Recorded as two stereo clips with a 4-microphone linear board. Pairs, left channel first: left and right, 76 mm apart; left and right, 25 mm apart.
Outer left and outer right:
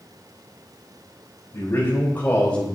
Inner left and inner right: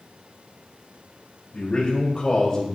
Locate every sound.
1.5 s a man speaking: 35° left (ahead or behind), 3.5 m; by 2.7 s 15° left (ahead or behind), 3 m